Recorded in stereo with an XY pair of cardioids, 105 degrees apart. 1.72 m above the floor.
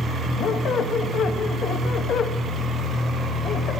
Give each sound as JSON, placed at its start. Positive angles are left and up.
{"t": 0.4, "sound": "a squeak", "azimuth_deg": 60, "distance_m": 1.9}